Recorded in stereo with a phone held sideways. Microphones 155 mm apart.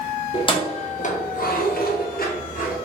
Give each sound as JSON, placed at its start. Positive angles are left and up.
{"t": 0.3, "sound": "keys jangling", "side_deg": 30, "distance_m": 1.0}